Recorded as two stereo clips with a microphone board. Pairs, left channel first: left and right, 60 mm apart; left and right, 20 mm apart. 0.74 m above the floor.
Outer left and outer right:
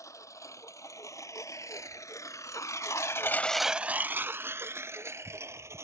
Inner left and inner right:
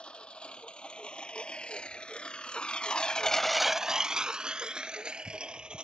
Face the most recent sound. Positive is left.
turn(degrees=-50)  # may be behind; listen again after turning